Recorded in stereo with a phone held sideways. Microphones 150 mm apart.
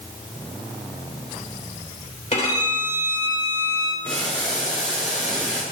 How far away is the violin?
About 3 m.